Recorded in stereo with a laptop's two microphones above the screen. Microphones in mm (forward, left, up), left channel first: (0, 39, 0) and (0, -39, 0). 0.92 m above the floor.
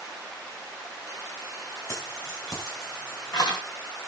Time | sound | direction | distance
1.9 | keys jangling | 40° left (ahead or behind) | 4.5 m